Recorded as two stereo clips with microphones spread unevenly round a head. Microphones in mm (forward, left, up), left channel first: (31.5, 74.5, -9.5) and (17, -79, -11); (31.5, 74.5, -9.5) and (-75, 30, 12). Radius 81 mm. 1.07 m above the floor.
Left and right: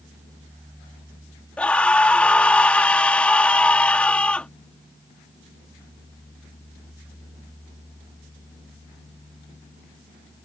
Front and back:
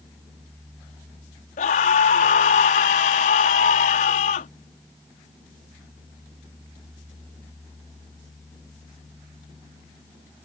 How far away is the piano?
No piano in this recording.